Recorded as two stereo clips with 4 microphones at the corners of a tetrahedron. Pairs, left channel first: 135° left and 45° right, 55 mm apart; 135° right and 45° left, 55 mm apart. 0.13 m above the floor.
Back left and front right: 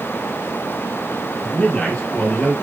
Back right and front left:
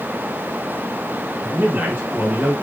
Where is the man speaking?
70° left, 2.5 m.